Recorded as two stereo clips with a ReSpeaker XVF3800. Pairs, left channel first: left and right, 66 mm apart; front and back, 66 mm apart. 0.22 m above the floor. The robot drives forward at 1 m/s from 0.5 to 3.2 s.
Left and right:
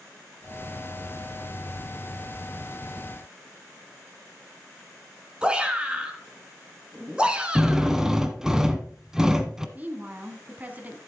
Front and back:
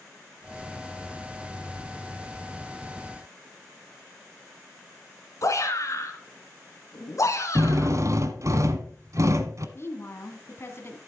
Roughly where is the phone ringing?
I don't hear a phone ringing.